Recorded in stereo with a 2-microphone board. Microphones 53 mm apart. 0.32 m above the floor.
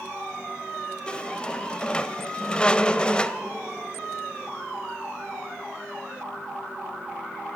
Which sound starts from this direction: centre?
A squeak, at 1.1 s.